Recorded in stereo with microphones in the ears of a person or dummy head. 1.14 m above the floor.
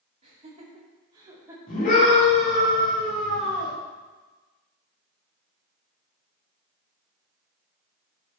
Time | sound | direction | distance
0.2 | laughter | 35° right (ahead or behind) | 3.5 m
1.7 | a scream | 40° left (ahead or behind) | 3.5 m